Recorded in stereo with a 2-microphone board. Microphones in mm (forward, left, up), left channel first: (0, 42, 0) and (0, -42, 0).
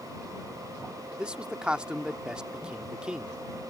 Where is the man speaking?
10° right (ahead or behind).